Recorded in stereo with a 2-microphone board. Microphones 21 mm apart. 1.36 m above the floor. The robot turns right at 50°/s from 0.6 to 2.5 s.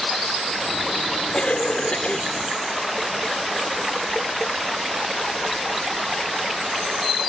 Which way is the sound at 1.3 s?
60° left.